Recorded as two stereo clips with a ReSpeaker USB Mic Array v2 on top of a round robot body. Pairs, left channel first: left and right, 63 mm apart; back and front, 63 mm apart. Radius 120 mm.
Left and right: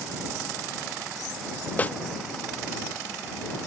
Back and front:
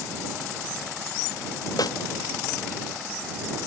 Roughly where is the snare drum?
Behind left.